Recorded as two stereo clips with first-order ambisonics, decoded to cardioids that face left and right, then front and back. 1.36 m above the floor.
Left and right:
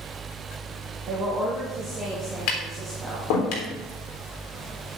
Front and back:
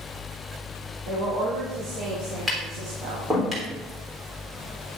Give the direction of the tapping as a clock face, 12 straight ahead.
9 o'clock.